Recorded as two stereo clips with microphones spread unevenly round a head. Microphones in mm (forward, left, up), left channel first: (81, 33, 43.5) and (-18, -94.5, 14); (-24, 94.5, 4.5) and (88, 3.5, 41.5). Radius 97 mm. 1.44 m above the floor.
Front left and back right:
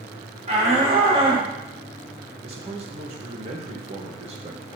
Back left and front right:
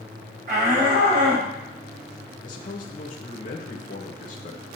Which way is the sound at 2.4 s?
Straight behind.